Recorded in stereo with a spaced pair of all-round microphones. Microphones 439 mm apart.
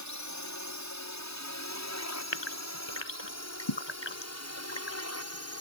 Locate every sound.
0.0 s a drone: 40° left (ahead or behind); by 5.6 s 35° left (ahead or behind)
2.3 s a gasp: 80° left